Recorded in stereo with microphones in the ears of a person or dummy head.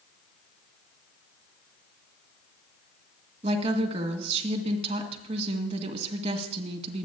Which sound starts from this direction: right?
A woman speaking, at 3.4 s.